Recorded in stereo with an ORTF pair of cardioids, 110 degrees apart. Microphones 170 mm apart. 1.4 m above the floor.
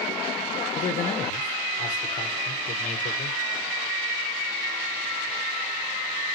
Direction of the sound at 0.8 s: 45° left.